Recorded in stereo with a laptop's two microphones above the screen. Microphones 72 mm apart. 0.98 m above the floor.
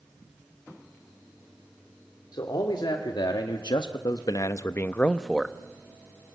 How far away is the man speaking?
About 2.5 m.